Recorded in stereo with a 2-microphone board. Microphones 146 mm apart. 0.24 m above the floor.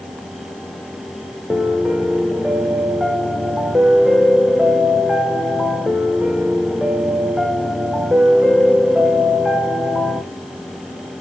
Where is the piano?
5° right (ahead or behind), 1.0 m.